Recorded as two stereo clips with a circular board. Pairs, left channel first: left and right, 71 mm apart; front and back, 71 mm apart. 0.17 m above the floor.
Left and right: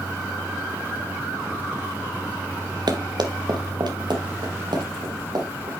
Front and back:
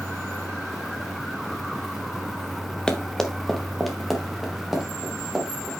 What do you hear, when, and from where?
2.9 s running footsteps: 80° right, 1.4 m; by 5.7 s 95° right, 4 m